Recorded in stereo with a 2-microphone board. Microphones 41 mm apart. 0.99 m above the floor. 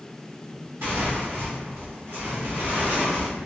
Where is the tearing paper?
75° right (ahead or behind), 1.6 m.